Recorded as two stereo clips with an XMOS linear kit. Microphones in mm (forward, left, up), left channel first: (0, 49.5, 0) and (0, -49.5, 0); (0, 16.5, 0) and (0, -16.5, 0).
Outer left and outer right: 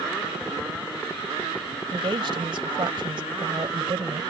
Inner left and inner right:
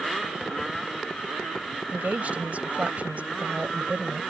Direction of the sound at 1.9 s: 55° right (ahead or behind).